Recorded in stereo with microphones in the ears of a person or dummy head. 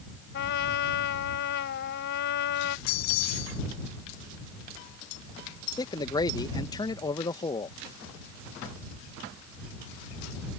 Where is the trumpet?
60° left (ahead or behind).